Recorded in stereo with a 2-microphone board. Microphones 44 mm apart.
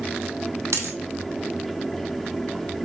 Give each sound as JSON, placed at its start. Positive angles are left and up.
{"t": 0.7, "sound": "a dropped coin", "side_deg": -75, "distance_m": 0.8}